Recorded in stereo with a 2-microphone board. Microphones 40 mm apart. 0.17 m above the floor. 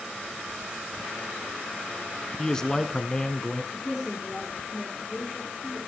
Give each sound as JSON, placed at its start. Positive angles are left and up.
{"t": 2.4, "sound": "a man speaking", "side_deg": 15, "distance_m": 1.4}
{"t": 3.7, "sound": "a woman speaking", "side_deg": 0, "distance_m": 7.0}